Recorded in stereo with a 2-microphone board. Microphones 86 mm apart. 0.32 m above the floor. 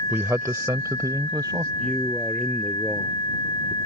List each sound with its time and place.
0.1 s a man speaking: 25° right (ahead or behind); by 1.7 s 50° right (ahead or behind)
1.8 s a man speaking: 15° left (ahead or behind)